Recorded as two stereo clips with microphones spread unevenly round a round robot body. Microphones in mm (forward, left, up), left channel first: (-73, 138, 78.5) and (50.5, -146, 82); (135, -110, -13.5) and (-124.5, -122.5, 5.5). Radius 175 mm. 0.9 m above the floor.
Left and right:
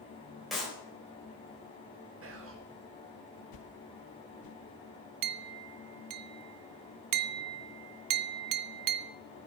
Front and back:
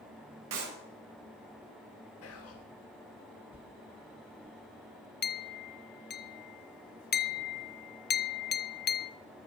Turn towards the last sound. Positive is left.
turn(degrees=-50)